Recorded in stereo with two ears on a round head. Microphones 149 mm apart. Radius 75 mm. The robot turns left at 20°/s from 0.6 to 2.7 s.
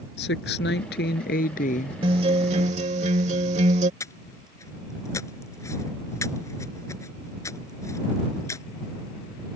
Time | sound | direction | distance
0.2 | a woman speaking | 70° left (ahead or behind) | ?
2.0 | a guitar | 35° right (ahead or behind) | ?
4.0 | breathing | 20° left (ahead or behind) | ?